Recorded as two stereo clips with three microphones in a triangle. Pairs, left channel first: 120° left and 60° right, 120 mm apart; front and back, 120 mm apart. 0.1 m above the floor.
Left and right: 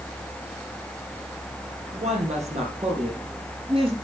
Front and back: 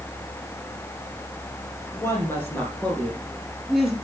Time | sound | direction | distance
1.9 | a woman speaking | 65° right | 4 m